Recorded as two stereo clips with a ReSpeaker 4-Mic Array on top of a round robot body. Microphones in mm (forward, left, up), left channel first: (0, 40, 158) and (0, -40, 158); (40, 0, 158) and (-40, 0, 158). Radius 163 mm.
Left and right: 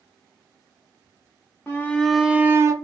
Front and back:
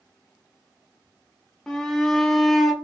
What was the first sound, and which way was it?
A shout, 70° left.